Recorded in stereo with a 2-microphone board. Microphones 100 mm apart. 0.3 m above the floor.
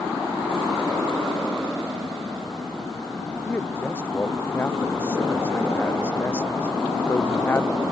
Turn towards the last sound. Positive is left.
turn(degrees=20)  # may be behind; listen again after turning